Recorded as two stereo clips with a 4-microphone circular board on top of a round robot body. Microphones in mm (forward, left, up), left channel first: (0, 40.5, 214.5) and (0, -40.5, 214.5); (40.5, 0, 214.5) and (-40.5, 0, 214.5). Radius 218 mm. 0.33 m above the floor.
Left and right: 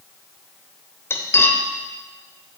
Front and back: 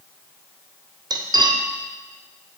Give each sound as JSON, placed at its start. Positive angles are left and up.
{"t": 1.1, "sound": "cutlery clinking", "azimuth_deg": 150, "distance_m": 1.4}